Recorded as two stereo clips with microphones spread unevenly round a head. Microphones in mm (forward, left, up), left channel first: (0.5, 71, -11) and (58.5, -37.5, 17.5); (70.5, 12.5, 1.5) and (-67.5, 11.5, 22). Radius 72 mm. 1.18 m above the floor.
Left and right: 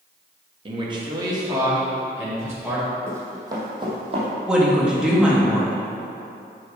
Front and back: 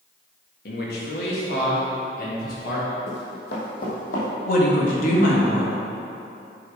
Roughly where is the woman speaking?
Ahead left.